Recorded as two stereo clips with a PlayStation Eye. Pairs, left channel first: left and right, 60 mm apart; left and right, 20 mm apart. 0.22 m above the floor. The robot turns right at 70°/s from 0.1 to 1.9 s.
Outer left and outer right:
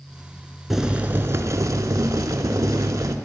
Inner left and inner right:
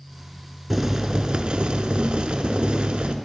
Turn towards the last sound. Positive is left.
turn(degrees=-90)